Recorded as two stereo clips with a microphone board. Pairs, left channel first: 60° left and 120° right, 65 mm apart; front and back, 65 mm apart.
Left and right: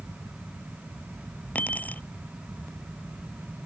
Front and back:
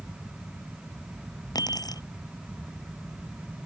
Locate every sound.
1.6 s keys jangling: 5° right